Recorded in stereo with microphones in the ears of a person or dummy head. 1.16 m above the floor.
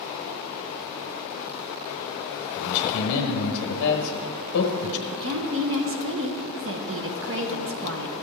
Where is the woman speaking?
60° right (ahead or behind), 0.8 m.